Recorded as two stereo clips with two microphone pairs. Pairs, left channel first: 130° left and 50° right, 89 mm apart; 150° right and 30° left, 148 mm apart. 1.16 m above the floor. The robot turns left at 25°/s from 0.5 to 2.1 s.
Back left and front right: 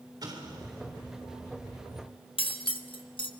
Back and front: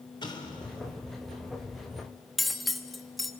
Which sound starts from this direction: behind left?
Cutlery clinking, at 2.4 s.